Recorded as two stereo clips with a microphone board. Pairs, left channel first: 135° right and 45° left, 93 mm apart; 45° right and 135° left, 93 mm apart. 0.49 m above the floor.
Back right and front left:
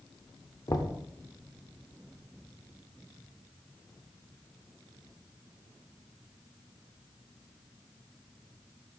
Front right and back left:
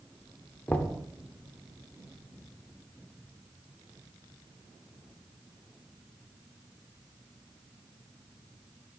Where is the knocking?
110° right, 0.6 m.